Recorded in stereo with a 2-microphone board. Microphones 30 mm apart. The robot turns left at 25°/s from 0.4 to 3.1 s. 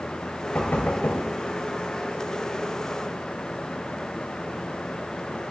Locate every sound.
0.6 s knocking: 75° left (ahead or behind), 2 m; by 1.2 s 80° left, 2 m